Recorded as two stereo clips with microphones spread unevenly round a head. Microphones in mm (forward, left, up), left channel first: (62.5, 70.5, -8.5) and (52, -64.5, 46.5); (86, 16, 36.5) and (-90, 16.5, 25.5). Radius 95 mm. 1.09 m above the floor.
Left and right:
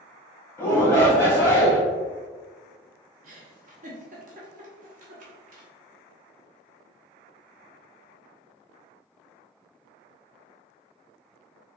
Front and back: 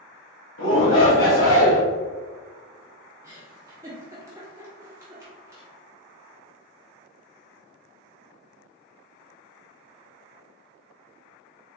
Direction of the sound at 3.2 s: 105° right.